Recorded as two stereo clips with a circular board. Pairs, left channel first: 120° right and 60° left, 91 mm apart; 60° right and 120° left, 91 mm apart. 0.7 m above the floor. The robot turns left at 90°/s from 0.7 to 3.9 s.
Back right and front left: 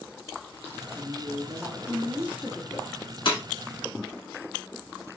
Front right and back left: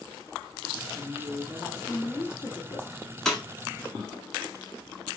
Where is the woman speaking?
115° left, 1.5 m; by 3.0 s 75° right, 1.5 m.